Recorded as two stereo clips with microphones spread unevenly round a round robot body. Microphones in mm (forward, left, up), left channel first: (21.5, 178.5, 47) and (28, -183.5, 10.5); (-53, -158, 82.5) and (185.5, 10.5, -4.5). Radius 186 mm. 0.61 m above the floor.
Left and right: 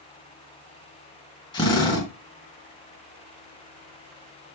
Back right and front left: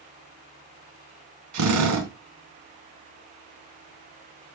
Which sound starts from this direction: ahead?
A drill, at 1.5 s.